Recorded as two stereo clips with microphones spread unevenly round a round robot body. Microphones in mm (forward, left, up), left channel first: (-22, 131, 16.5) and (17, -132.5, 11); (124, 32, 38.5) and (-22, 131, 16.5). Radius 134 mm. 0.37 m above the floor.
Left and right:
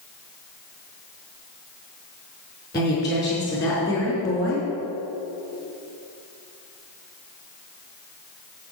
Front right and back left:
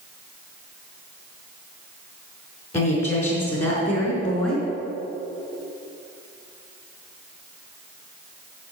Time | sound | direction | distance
2.7 | a woman speaking | 20° left | 4.5 m